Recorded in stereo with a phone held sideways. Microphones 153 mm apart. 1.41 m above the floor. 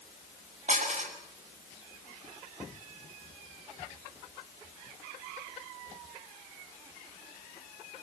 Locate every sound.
0.7 s dishes clattering: 50° right (ahead or behind), 6 m